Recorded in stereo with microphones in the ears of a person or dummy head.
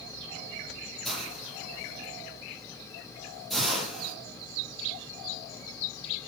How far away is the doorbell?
I don't hear a doorbell.